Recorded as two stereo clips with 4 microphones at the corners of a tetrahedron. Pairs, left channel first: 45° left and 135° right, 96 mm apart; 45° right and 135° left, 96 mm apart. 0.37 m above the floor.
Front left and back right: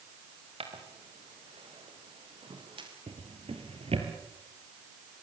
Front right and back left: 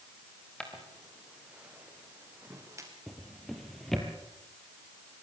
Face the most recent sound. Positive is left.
turn(degrees=-135)